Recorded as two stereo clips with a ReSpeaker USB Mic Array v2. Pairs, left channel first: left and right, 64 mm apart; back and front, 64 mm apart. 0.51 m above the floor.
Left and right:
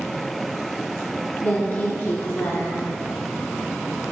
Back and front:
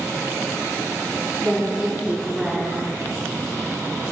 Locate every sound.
1.4 s a woman speaking: 60° left, 0.9 m